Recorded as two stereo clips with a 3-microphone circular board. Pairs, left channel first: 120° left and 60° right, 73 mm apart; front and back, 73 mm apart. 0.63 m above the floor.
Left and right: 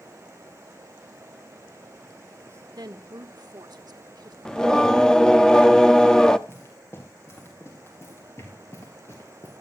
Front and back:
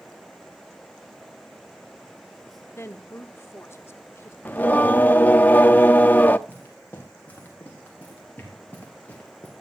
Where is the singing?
50° left, 0.7 m.